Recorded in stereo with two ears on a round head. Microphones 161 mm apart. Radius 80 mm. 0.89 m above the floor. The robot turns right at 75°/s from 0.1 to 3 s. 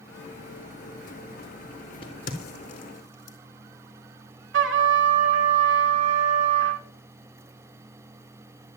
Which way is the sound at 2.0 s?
30° left (ahead or behind).